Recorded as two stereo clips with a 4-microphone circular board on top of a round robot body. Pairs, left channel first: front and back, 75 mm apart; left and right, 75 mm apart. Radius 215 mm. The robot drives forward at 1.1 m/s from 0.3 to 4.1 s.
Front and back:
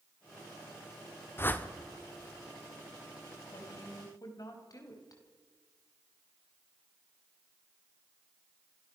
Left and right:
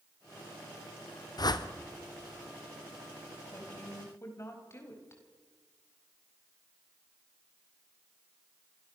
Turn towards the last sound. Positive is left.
turn(degrees=40)